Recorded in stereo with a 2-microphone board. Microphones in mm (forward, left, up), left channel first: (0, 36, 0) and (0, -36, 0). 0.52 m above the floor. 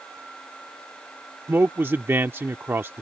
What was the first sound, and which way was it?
A man speaking, 30° right (ahead or behind).